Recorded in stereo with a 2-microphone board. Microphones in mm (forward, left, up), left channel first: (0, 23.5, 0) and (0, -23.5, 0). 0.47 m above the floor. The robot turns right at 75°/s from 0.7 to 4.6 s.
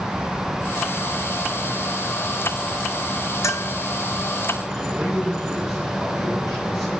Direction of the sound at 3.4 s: 85° left.